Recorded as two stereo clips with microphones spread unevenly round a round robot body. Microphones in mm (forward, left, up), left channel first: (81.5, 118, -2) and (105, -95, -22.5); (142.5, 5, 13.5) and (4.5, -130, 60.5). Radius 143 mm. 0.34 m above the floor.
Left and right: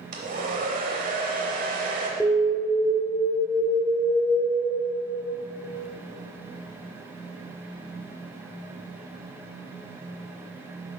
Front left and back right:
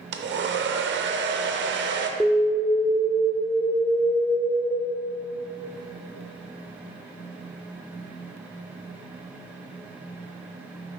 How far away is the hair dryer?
About 0.6 m.